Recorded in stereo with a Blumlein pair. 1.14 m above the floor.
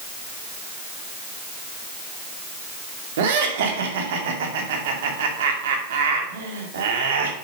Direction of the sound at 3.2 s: 55° right.